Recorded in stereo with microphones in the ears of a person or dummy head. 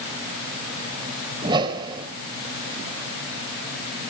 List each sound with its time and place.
1.4 s a whoosh: 30° right (ahead or behind), 3 m